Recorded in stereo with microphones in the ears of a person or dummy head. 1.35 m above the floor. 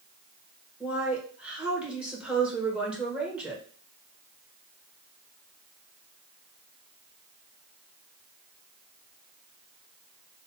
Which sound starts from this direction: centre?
A woman speaking, at 0.8 s.